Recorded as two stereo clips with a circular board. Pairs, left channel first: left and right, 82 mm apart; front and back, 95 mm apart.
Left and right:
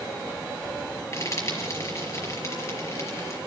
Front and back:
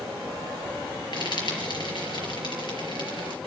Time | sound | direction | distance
1.1 | frying | 40° left | 4.5 m